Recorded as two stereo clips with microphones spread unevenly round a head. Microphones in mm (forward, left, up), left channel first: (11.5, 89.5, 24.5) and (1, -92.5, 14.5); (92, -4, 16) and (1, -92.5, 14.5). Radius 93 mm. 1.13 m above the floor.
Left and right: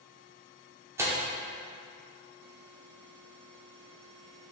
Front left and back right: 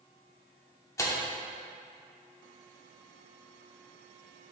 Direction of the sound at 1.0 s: 15° right.